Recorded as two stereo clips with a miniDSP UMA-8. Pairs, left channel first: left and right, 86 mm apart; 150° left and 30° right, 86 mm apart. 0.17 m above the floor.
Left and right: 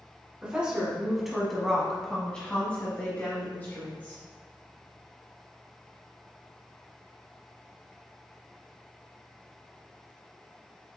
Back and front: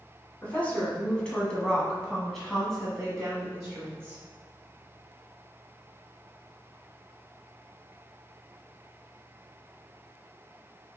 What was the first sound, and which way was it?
A woman speaking, 155° right.